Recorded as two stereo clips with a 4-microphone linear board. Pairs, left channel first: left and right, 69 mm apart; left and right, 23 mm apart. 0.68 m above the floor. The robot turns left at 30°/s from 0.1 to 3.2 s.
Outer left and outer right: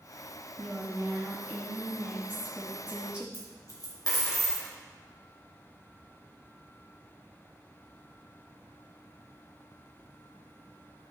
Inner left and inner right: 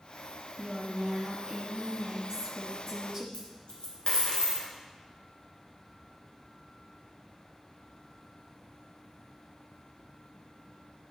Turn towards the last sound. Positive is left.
turn(degrees=60)  # may be behind; listen again after turning